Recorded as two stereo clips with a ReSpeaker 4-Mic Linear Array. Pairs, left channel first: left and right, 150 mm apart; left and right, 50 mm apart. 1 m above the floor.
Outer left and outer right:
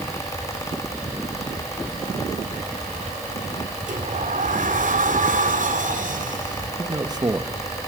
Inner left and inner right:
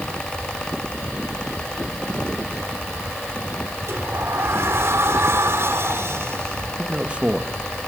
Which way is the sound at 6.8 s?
25° right (ahead or behind).